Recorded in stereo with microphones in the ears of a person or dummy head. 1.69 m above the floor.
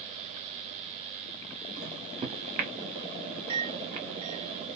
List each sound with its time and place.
1.8 s a microwave: 30° right (ahead or behind), 1.0 m